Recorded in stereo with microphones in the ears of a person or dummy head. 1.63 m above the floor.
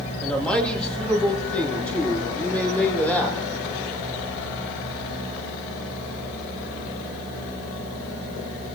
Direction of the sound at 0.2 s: 5° left (ahead or behind).